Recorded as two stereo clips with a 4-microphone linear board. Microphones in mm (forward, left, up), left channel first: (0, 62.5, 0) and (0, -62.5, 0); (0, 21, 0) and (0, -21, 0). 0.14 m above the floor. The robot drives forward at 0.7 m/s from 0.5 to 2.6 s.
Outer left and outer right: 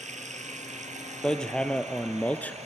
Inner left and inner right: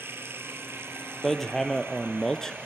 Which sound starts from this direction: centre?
Hammering, at 1.2 s.